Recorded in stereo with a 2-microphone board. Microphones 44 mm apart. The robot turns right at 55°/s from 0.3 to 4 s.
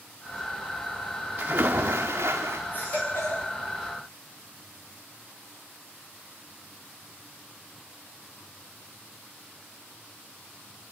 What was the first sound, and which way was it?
A splash, 130° right.